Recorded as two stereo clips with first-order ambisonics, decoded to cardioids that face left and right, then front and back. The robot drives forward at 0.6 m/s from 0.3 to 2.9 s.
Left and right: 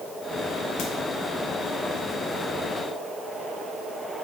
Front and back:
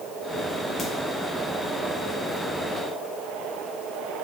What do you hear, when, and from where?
0.8 s a crack: 70° left, 0.8 m; by 0.9 s 75° left, 0.8 m